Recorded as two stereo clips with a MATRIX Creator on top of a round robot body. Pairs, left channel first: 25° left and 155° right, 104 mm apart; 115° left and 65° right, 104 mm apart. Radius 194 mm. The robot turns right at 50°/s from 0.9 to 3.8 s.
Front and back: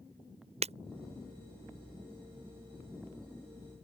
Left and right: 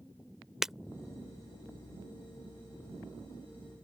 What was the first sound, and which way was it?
Breaking glass, 155° right.